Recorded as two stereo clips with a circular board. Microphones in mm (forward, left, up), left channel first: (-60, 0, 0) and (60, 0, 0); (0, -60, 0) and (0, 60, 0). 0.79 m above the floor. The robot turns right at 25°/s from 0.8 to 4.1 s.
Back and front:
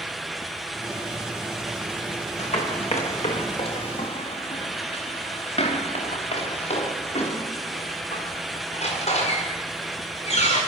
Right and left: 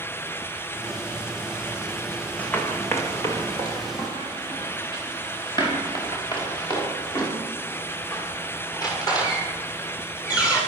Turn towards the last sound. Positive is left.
turn(degrees=-150)